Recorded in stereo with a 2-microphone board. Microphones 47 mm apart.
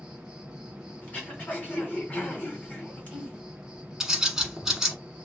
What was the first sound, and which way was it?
An insect, 15° right (ahead or behind).